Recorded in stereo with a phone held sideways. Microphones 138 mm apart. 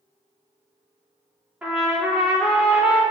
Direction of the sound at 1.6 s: 5° right (ahead or behind).